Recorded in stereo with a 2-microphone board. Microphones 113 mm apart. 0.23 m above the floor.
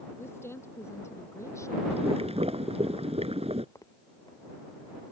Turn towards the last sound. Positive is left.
turn(degrees=30)  # may be behind; listen again after turning